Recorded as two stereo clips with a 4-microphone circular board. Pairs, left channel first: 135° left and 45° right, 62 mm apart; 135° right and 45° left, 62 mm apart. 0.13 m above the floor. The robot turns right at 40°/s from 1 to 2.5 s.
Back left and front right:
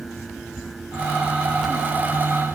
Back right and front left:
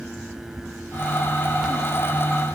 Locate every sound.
Only background noise.